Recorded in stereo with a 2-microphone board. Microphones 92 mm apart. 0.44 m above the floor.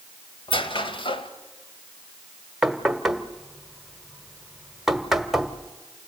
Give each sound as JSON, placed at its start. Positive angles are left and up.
{"t": 0.5, "sound": "a squeak", "side_deg": 70, "distance_m": 1.7}
{"t": 2.6, "sound": "knocking", "side_deg": -5, "distance_m": 1.3}